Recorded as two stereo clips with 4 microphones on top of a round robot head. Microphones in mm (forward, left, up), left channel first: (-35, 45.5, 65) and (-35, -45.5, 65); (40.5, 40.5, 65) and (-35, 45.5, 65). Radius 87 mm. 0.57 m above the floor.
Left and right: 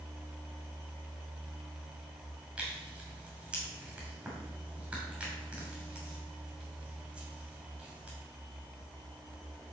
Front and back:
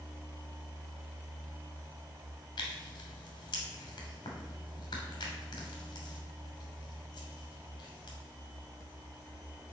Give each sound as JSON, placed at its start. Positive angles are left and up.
{"t": 2.6, "sound": "tearing paper", "azimuth_deg": -10, "distance_m": 2.5}